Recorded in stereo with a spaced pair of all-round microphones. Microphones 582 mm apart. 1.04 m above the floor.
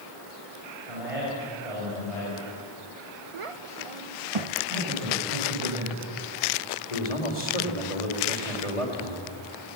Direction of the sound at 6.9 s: 85° left.